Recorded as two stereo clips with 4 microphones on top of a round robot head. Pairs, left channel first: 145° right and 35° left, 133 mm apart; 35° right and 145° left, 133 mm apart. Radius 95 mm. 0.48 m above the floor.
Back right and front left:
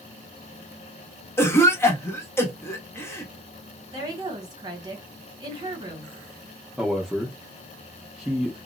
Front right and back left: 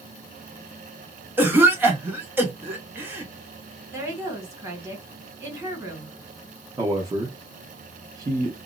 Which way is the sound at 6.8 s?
125° left.